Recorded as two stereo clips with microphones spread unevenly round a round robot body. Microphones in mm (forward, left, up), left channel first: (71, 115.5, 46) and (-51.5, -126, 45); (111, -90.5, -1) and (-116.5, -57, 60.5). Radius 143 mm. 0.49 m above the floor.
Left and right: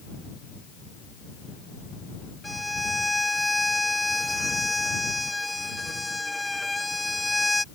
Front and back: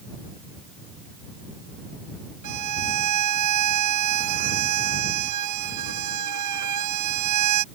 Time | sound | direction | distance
2.4 | a violin | 155° left | ?